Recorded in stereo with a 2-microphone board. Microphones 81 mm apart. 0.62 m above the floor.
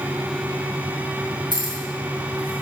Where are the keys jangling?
60° right (ahead or behind), 3 m; by 2.6 s 85° right, 3.5 m.